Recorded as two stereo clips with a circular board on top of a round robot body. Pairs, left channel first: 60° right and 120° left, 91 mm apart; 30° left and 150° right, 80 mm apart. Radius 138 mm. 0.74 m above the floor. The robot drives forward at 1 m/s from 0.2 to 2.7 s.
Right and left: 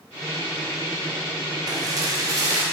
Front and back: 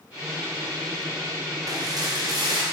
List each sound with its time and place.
1.7 s dishes clattering: 170° left, 1.0 m; by 2.6 s 175° left, 1.9 m